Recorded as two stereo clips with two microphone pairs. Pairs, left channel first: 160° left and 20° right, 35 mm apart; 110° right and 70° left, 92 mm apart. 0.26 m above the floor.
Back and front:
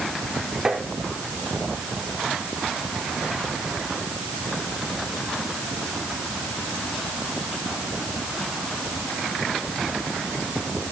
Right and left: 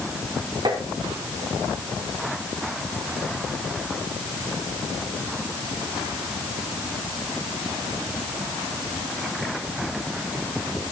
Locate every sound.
0.7 s tapping: 45° left, 3.5 m